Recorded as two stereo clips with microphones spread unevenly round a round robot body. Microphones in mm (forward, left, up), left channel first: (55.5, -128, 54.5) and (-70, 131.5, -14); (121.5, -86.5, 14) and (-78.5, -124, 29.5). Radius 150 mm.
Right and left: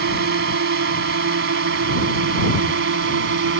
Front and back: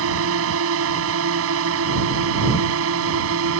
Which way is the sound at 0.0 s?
165° left.